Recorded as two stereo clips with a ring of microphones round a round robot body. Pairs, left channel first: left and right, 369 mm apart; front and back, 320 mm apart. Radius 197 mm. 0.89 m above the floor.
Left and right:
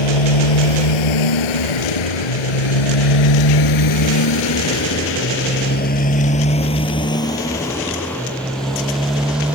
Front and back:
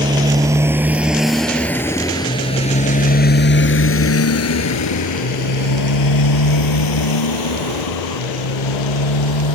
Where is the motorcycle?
105° left; by 9.5 s 5° right.